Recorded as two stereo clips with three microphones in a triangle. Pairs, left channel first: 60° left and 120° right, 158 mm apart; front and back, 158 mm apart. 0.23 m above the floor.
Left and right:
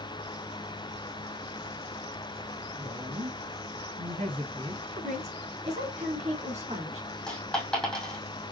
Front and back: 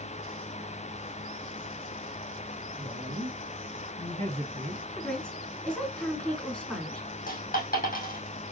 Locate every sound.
2.8 s a woman speaking: 130° right, 2.0 m; by 4.8 s 170° right, 1.6 m
4.9 s a woman speaking: 85° right, 3 m
7.3 s a dropped coin: 25° right, 2.5 m